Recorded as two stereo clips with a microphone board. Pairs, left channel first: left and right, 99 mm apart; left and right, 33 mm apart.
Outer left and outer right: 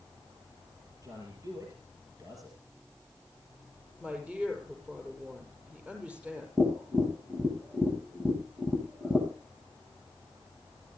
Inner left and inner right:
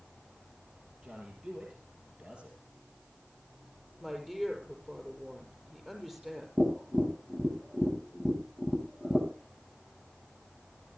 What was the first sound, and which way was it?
A man speaking, 35° right (ahead or behind).